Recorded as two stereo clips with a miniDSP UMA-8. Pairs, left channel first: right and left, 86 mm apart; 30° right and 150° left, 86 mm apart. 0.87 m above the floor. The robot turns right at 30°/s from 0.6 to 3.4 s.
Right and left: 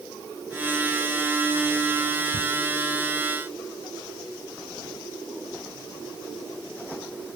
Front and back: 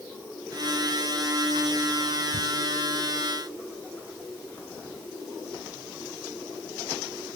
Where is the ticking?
70° right, 1.5 m.